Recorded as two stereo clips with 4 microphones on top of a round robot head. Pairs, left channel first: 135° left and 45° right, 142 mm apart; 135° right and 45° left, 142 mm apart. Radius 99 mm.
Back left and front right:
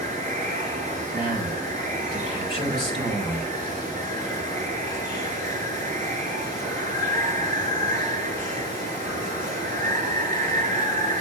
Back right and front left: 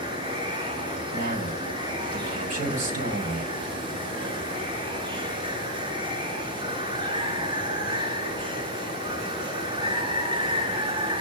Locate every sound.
0.0 s running water: 105° left, 3.5 m
1.1 s a man speaking: 75° left, 4.5 m